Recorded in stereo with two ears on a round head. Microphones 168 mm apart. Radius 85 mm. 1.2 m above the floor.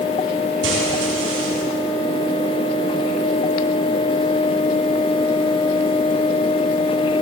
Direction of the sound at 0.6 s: 75° right (ahead or behind).